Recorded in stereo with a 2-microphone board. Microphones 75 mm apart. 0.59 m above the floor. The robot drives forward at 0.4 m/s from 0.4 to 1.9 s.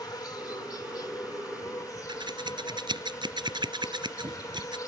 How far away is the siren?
No siren in this recording.